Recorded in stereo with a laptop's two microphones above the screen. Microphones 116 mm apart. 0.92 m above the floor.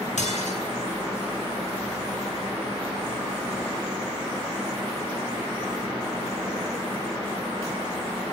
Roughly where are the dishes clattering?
Left.